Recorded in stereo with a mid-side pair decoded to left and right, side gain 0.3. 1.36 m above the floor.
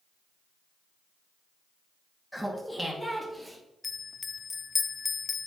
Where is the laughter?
5° left, 2.5 m; by 3.6 s 5° right, 3 m.